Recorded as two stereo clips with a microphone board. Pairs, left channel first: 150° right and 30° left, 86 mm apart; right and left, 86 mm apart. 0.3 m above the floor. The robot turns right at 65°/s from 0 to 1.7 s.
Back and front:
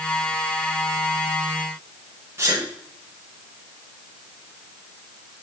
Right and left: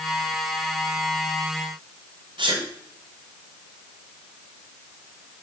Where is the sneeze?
90° left, 1.7 m.